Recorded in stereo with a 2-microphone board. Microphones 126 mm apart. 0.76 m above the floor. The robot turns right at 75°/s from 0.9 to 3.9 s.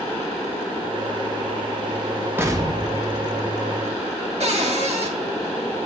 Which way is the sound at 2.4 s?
165° right.